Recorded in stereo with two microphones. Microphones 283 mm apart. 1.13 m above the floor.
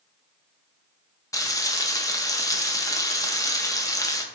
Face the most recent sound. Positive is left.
turn(degrees=10)  # may be behind; listen again after turning